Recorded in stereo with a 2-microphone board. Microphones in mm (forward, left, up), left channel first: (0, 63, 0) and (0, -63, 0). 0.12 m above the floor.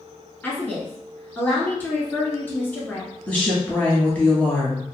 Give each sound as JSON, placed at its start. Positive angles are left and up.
{"t": 0.4, "sound": "a woman speaking", "side_deg": 15, "distance_m": 1.1}
{"t": 3.3, "sound": "a woman speaking", "side_deg": 10, "distance_m": 1.2}